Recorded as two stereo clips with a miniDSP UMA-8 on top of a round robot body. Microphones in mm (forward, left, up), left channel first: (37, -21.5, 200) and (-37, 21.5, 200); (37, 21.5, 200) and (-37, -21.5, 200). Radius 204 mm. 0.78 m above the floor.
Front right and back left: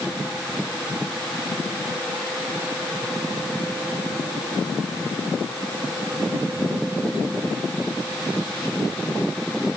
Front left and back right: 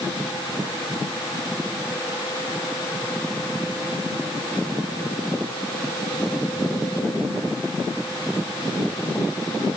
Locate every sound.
Only background noise.